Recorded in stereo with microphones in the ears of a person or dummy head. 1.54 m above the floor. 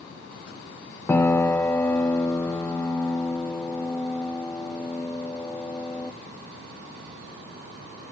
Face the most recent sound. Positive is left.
turn(degrees=15)  # may be behind; listen again after turning